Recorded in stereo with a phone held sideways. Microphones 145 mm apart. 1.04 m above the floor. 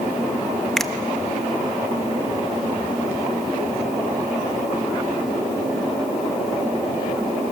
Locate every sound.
0.8 s a finger snap: 5° left (ahead or behind), 0.9 m